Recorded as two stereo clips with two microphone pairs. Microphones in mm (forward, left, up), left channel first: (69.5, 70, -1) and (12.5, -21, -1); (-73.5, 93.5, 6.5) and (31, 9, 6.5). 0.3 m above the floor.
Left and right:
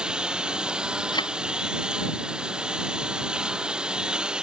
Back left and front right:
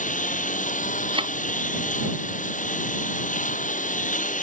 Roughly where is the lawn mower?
Behind left.